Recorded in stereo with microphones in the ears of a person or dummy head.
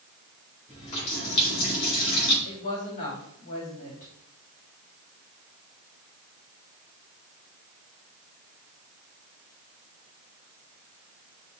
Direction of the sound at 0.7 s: 35° left (ahead or behind).